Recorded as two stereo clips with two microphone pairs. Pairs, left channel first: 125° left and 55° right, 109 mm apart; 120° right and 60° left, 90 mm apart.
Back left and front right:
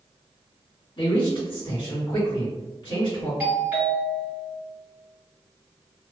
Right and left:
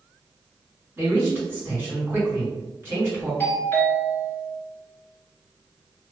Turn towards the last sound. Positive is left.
turn(degrees=-105)